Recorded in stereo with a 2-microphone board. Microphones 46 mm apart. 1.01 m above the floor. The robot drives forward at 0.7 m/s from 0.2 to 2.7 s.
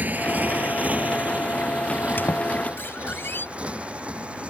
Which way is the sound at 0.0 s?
40° right (ahead or behind).